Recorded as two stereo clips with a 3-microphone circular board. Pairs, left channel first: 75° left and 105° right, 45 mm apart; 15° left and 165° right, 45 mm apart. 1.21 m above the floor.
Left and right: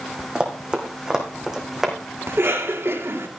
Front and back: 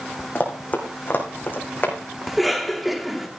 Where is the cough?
75° right, 2.5 m.